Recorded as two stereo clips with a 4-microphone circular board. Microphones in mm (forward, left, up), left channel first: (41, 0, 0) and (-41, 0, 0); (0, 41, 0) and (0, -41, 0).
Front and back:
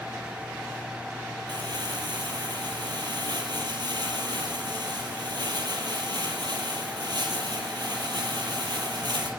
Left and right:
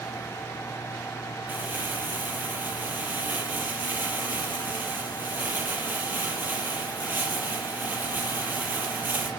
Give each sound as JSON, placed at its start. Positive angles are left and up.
{"t": 1.5, "sound": "crumpling", "azimuth_deg": -155, "distance_m": 5.0}